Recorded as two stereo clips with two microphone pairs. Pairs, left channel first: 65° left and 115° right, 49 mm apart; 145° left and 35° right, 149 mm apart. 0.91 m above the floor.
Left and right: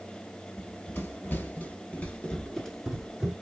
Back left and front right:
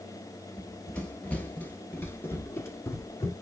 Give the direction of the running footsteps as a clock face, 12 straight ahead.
10 o'clock.